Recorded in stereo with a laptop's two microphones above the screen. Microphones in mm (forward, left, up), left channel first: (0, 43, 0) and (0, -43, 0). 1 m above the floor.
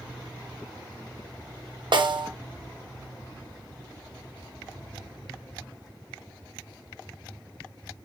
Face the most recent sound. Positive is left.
turn(degrees=-65)  # may be behind; listen again after turning